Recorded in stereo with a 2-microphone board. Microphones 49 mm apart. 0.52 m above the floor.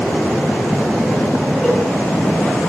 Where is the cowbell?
15° left (ahead or behind), 8 m.